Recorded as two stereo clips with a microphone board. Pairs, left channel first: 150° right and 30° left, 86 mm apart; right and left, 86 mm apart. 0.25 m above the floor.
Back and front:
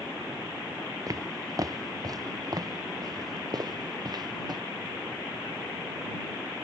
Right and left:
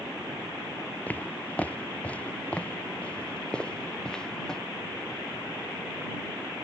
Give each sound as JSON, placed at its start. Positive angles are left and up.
{"t": 1.1, "sound": "footsteps", "azimuth_deg": -15}